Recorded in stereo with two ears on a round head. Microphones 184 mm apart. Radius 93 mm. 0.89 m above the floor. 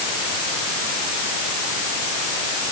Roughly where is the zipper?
No zipper in this recording.